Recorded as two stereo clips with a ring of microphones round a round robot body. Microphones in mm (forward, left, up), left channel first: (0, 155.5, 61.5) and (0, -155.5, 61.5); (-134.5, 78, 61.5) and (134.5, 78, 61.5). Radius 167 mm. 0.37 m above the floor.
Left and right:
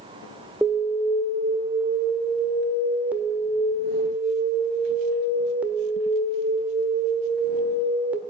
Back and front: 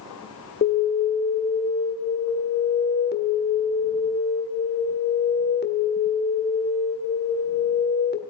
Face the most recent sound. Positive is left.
turn(degrees=-170)